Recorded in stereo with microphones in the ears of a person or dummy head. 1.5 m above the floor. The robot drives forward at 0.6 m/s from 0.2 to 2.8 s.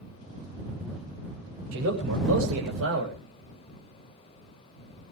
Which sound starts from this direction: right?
A man speaking, at 1.7 s.